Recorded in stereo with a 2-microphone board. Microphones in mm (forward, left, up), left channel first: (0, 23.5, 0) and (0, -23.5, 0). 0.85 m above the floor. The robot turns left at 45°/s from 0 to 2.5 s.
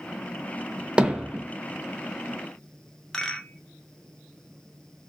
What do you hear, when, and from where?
1.0 s hammering: 20° right (ahead or behind), 0.6 m; by 1.4 s 5° right (ahead or behind), 0.6 m
3.1 s a rattle: 15° left (ahead or behind), 0.6 m